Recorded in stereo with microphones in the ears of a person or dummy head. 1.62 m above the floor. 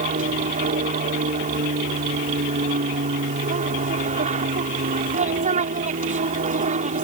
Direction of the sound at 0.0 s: 40° right (ahead or behind).